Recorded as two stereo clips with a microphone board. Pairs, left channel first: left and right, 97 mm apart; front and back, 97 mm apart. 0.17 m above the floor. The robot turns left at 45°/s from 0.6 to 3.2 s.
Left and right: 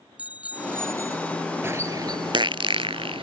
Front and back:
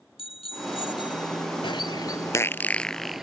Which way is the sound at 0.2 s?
15° right.